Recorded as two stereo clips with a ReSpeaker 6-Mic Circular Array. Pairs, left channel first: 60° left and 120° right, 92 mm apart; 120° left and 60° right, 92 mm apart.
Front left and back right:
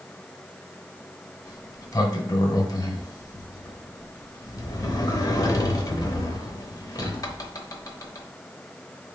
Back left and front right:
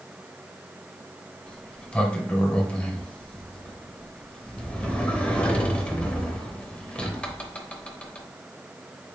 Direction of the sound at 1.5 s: 50° left.